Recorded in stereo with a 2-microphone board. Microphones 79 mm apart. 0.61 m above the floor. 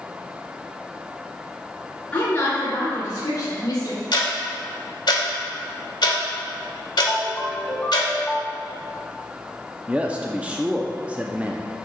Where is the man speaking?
15° right (ahead or behind), 0.6 m.